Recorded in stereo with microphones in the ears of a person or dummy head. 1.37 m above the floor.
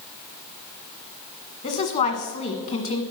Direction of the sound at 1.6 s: 35° left (ahead or behind).